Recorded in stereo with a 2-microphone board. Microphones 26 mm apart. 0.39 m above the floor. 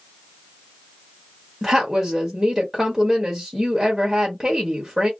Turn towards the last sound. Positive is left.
turn(degrees=-10)  # may be behind; listen again after turning